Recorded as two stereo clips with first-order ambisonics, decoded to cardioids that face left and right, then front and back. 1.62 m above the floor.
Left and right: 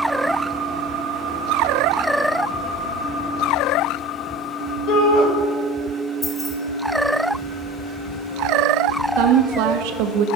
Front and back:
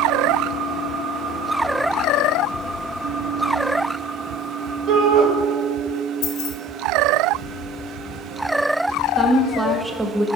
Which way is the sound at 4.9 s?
130° left.